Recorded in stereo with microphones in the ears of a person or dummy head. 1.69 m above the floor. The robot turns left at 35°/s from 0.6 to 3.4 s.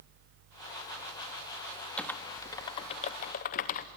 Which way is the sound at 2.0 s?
10° left (ahead or behind).